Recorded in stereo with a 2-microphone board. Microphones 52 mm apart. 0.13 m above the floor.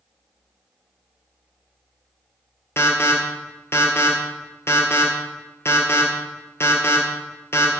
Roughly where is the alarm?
Left.